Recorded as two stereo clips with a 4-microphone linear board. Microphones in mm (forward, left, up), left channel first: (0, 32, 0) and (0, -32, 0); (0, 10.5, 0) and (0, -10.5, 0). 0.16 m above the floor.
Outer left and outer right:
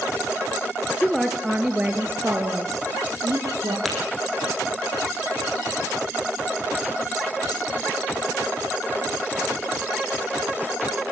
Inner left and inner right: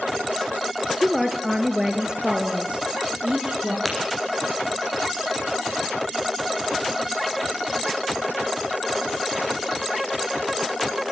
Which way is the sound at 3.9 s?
Centre (ahead or behind).